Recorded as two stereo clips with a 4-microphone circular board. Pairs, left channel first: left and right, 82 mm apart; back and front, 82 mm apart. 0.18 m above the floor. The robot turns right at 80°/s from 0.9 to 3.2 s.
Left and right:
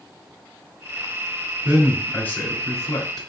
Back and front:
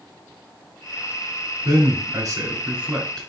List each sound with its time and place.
1.6 s a man speaking: 20° right, 1.6 m; by 3.3 s 100° left, 1.6 m